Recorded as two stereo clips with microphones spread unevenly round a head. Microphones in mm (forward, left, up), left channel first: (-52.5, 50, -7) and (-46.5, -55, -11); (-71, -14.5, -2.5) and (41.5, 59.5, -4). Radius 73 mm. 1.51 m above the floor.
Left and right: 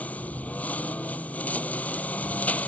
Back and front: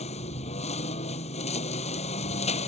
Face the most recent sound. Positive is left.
turn(degrees=170)